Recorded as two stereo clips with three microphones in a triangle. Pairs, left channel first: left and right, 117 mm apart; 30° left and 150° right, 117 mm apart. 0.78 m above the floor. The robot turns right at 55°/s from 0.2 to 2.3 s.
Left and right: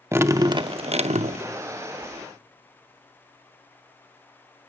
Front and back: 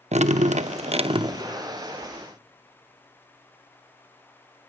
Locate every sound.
0.1 s dripping: 160° right, 0.6 m; by 1.4 s 90° right, 0.6 m